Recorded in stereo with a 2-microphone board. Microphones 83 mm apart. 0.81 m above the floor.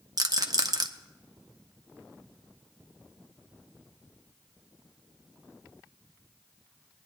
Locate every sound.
0.2 s a rattle: 50° right (ahead or behind), 0.7 m